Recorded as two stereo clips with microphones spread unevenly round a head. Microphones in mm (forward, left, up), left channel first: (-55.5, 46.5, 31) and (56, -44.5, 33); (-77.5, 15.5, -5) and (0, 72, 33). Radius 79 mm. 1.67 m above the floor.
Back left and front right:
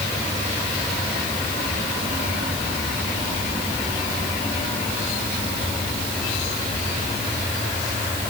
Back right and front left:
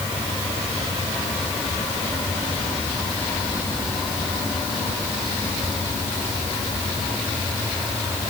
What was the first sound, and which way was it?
Only background noise.